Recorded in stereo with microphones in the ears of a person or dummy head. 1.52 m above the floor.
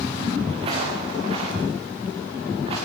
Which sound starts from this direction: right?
Footsteps, at 0.5 s.